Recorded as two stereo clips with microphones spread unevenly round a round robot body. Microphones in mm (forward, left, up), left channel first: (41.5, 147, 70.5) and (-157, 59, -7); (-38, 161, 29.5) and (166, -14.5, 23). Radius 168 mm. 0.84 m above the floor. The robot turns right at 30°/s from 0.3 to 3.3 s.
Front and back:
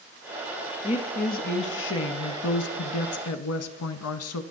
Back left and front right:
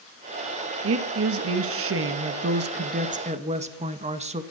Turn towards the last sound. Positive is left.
turn(degrees=20)